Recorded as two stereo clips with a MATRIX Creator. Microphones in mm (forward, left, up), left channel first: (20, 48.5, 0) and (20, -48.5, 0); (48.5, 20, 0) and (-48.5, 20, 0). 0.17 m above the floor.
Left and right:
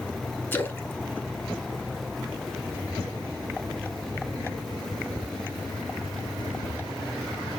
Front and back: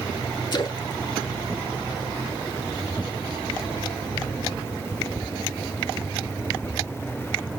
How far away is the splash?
About 0.9 m.